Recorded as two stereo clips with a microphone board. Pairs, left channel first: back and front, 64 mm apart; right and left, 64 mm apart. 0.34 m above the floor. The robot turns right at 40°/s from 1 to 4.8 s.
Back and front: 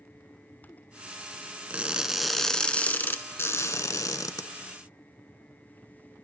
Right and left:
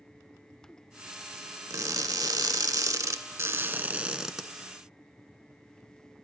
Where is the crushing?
70° left, 0.5 m; by 4.5 s straight behind, 0.5 m.